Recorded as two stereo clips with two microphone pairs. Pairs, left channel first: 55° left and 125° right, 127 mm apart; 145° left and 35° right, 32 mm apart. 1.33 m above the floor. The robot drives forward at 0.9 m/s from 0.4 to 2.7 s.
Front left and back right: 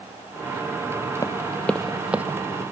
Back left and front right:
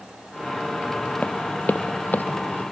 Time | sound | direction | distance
1.2 | running footsteps | 105° left | ?